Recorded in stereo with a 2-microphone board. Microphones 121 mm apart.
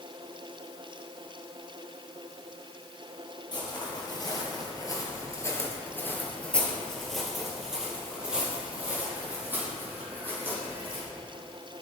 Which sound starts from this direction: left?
Footsteps, at 3.5 s.